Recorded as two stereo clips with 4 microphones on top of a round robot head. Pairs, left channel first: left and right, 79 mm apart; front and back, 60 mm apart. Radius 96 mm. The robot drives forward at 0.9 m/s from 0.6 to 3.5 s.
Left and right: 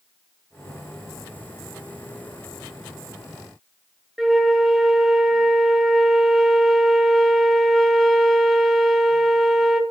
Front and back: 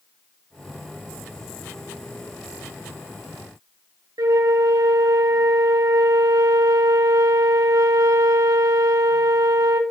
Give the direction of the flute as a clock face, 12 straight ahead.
6 o'clock.